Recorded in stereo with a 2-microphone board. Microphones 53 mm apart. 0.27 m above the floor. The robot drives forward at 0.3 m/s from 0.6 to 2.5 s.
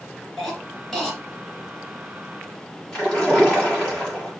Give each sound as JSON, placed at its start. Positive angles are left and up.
{"t": 0.4, "sound": "a cough", "side_deg": 5, "distance_m": 3.5}
{"t": 2.9, "sound": "a splash", "side_deg": 10, "distance_m": 5.5}